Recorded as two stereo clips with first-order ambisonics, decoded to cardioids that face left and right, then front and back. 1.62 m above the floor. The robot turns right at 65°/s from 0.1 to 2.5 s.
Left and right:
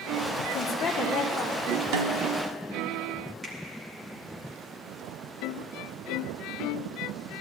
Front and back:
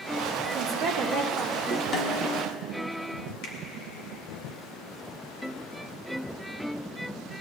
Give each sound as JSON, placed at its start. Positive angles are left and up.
{"t": 0.5, "sound": "a woman speaking", "azimuth_deg": 135, "distance_m": 1.4}
{"t": 1.9, "sound": "a snare drum", "azimuth_deg": -70, "distance_m": 0.9}
{"t": 3.4, "sound": "a finger snap", "azimuth_deg": -15, "distance_m": 2.0}